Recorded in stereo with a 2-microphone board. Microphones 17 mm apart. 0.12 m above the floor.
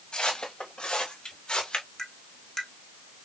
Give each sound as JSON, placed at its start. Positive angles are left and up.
{"t": 0.1, "sound": "footsteps", "side_deg": 80, "distance_m": 2.5}
{"t": 2.0, "sound": "tapping", "side_deg": 40, "distance_m": 1.4}